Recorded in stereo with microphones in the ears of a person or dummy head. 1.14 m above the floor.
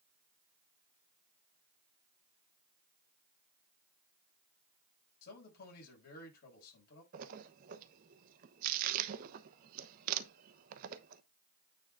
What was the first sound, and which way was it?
A man speaking, 55° left (ahead or behind).